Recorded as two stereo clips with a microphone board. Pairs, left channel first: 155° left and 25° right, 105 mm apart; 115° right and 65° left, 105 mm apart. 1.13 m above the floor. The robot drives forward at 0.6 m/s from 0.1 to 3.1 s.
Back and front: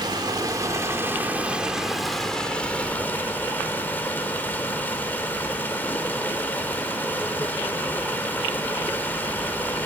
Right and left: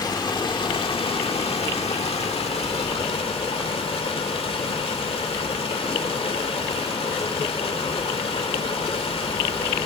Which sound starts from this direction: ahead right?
Running water, at 0.0 s.